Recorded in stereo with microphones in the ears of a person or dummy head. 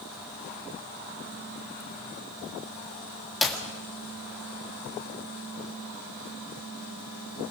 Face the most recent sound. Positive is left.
turn(degrees=0)  # may be behind; listen again after turning